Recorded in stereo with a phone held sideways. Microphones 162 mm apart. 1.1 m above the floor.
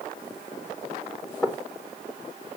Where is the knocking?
15° left (ahead or behind), 3 m.